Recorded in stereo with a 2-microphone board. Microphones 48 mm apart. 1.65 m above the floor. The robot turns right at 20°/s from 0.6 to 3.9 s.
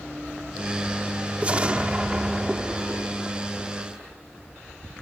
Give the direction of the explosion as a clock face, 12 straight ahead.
2 o'clock.